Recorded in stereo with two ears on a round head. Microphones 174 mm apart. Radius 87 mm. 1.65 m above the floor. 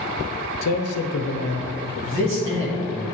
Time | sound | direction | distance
0.6 | a man speaking | 80° left | 0.6 m
2.0 | a man speaking | 70° right (ahead or behind) | 2.5 m